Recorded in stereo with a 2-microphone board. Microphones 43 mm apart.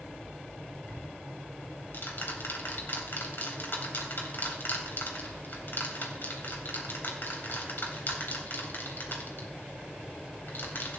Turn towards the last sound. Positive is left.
turn(degrees=55)  # may be behind; listen again after turning